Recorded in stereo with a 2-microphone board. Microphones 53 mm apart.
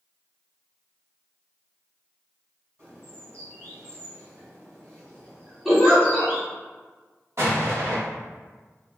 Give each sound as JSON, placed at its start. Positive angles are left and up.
{"t": 2.8, "sound": "a bird", "side_deg": -60, "distance_m": 1.8}
{"t": 5.7, "sound": "a giggle", "side_deg": 0, "distance_m": 1.4}
{"t": 7.4, "sound": "an explosion", "side_deg": -55, "distance_m": 1.2}